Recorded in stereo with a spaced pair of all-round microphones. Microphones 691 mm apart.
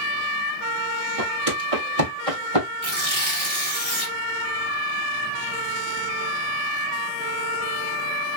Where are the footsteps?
50° right (ahead or behind), 1.6 m; by 2.7 s 45° right (ahead or behind), 2.5 m.